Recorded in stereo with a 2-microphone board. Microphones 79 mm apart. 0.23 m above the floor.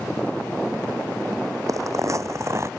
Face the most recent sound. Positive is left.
turn(degrees=-40)  # may be behind; listen again after turning